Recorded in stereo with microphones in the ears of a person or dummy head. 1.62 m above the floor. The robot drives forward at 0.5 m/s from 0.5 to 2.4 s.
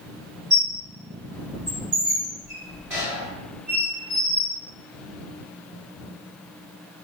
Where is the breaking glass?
I don't hear breaking glass.